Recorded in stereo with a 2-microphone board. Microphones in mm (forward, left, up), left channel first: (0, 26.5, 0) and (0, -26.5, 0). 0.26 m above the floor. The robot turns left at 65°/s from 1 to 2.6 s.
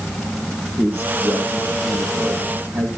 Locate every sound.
0.8 s a man speaking: 40° right, 8 m; by 2.9 s 140° right, 8 m